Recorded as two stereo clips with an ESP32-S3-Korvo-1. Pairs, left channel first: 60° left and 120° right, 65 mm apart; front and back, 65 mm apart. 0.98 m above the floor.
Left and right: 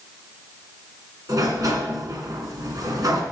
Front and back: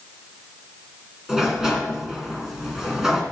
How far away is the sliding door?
About 2.5 m.